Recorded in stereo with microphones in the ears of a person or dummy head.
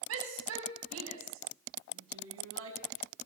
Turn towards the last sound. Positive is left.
turn(degrees=-90)